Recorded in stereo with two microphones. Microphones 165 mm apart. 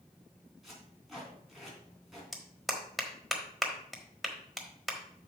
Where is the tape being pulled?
Centre (ahead or behind), 3.5 m.